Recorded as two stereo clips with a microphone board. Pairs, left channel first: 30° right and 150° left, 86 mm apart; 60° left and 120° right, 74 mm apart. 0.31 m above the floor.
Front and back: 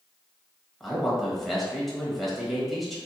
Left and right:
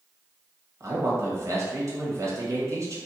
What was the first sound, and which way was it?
A man speaking, 120° right.